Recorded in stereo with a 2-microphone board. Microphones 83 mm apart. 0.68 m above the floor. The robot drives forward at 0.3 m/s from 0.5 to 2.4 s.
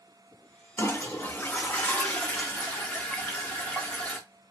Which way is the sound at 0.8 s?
30° left (ahead or behind).